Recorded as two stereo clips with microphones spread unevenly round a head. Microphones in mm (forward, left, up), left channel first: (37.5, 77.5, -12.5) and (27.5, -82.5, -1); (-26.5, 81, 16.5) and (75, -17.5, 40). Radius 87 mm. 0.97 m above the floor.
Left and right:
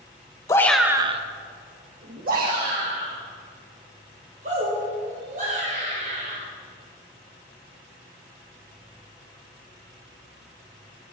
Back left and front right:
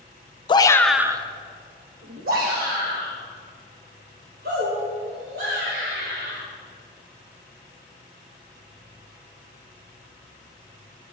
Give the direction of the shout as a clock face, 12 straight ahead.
7 o'clock.